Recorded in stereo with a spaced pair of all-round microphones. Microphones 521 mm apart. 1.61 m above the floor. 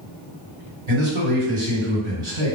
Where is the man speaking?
65° right (ahead or behind), 1.5 m.